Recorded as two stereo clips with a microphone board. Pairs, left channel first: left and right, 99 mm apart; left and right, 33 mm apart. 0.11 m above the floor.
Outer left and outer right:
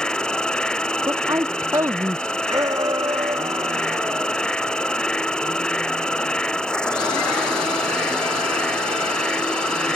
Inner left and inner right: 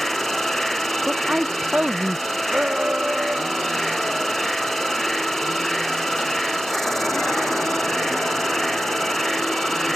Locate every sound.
0.0 s an insect: 10° left (ahead or behind)
1.1 s a woman speaking: 35° right (ahead or behind)
2.5 s a shout: 40° right (ahead or behind)